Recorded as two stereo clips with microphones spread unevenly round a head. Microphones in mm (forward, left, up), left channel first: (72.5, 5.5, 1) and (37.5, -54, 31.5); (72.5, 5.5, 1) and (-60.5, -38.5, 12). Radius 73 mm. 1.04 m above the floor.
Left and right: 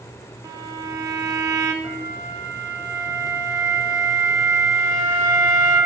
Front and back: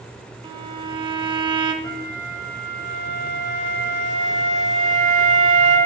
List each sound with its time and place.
0.4 s a violin: 105° right, 0.6 m
1.8 s a flute: 100° right, 2.5 m